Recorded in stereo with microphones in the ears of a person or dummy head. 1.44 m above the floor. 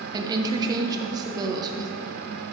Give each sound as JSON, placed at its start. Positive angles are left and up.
{"t": 0.1, "sound": "a woman speaking", "side_deg": -25, "distance_m": 0.9}